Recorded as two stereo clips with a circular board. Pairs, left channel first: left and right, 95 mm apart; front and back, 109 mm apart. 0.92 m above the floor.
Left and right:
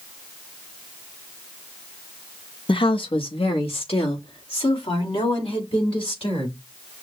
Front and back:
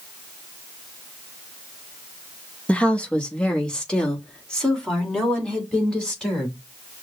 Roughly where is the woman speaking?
Left.